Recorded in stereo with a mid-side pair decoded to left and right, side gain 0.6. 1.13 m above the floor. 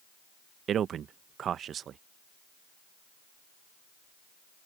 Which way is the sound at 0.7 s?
45° right.